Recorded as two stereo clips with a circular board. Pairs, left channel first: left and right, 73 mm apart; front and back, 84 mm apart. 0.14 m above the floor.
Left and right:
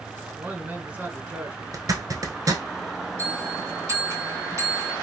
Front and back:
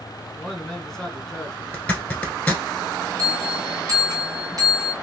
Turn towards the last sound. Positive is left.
turn(degrees=-140)